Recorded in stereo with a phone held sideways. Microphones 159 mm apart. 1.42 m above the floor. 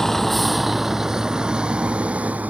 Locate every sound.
0.0 s a vehicle: centre (ahead or behind); by 2.5 s 10° right (ahead or behind)